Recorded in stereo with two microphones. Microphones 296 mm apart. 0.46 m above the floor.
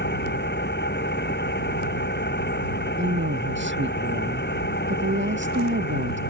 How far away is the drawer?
No drawer in this recording.